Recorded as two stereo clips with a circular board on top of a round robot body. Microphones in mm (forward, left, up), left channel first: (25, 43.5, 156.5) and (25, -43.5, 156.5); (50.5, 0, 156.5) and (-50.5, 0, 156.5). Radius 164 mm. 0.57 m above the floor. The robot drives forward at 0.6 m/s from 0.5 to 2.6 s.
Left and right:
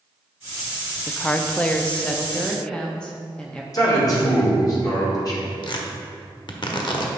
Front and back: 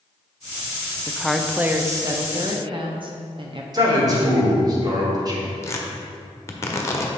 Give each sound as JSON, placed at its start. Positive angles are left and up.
{"t": 1.1, "sound": "a woman speaking", "azimuth_deg": 45, "distance_m": 0.7}
{"t": 3.7, "sound": "a man speaking", "azimuth_deg": 135, "distance_m": 2.5}
{"t": 5.6, "sound": "tearing paper", "azimuth_deg": 60, "distance_m": 1.2}